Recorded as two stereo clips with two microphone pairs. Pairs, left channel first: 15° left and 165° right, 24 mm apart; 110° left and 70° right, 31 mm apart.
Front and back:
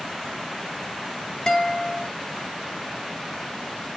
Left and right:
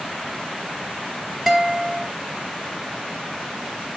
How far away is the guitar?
About 1.2 m.